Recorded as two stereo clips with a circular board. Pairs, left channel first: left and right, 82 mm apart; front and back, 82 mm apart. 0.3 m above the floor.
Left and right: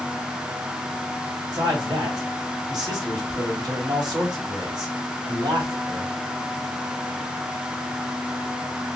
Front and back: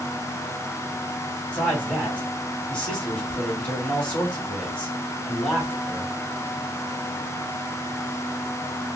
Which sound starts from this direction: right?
A man speaking, at 1.5 s.